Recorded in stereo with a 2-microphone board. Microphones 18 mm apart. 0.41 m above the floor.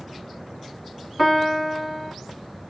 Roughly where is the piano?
Centre.